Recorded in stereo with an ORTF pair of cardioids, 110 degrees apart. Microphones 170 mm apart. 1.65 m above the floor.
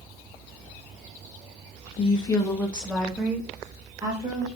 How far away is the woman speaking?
About 1.4 m.